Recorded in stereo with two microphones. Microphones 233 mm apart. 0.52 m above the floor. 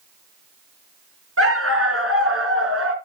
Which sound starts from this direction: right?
A dog barking, at 1.4 s.